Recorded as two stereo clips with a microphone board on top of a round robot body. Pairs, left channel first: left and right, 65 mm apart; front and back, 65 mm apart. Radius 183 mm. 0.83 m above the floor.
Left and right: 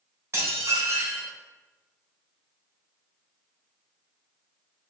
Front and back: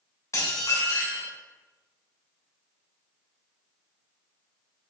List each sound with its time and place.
0.3 s dishes clattering: 40° right, 3 m